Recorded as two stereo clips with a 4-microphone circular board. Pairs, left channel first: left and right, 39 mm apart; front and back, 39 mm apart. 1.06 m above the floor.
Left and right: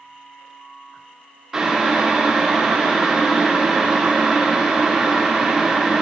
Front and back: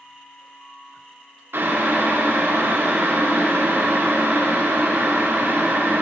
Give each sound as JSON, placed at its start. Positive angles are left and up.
{"t": 1.5, "sound": "boiling", "azimuth_deg": -165, "distance_m": 0.6}